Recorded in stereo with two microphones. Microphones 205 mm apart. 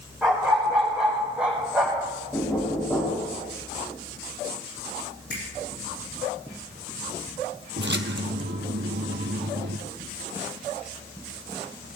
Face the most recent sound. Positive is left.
turn(degrees=-60)  # may be behind; listen again after turning